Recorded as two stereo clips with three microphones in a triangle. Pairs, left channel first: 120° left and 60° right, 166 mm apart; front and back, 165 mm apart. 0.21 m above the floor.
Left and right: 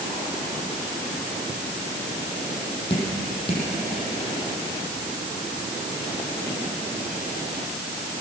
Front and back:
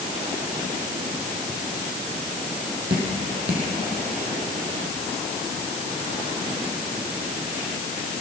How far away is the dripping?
About 7 m.